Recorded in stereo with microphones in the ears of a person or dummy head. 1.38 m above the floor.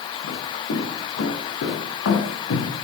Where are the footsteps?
70° left (ahead or behind), 5.5 m; by 2.7 s 75° left (ahead or behind), 4.5 m.